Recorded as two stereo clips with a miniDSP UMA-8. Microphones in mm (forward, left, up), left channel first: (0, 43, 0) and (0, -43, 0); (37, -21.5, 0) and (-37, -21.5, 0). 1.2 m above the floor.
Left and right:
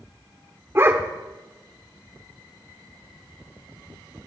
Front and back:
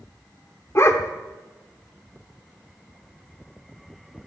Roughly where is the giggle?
I don't hear a giggle.